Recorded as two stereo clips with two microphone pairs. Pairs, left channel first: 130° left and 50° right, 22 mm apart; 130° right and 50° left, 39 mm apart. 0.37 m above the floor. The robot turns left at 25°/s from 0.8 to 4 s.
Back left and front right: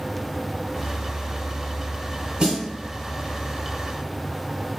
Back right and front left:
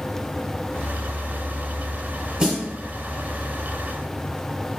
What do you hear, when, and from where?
2.4 s a snare drum: 10° right, 1.0 m; by 2.7 s 20° right, 1.0 m